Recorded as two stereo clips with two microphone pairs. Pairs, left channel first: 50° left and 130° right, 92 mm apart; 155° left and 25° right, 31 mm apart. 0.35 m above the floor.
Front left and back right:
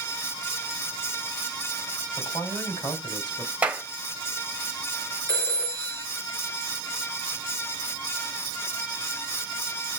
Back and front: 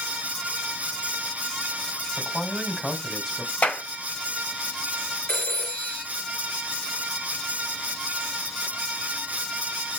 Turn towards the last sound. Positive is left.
turn(degrees=115)